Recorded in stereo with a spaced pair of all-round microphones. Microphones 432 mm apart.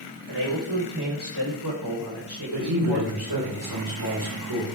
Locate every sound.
0.3 s a man speaking: 65° right (ahead or behind), 7.5 m; by 3.1 s 60° right (ahead or behind), 5.5 m
2.5 s a man speaking: 60° right (ahead or behind), 7 m